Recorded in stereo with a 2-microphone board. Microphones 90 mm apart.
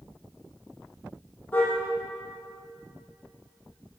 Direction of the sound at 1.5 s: 15° left (ahead or behind).